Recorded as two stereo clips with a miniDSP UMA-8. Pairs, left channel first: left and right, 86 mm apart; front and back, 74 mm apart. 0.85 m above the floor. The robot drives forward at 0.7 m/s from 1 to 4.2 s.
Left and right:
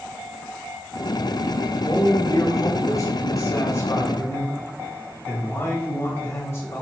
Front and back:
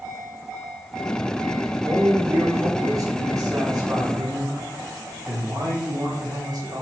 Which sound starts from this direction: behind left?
A man speaking, at 1.9 s.